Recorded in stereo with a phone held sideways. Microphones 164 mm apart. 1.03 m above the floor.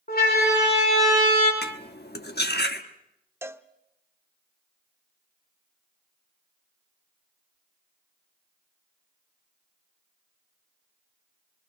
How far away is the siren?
About 5 m.